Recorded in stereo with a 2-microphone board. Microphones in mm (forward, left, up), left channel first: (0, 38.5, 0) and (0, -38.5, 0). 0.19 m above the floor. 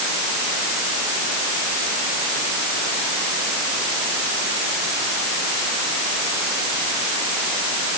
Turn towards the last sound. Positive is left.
No sound to turn to.